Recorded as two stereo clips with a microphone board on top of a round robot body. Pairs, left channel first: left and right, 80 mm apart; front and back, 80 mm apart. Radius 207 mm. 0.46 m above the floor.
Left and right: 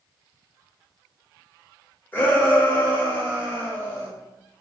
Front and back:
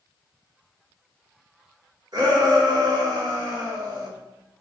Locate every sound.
2.1 s a shout: 150° left, 1.8 m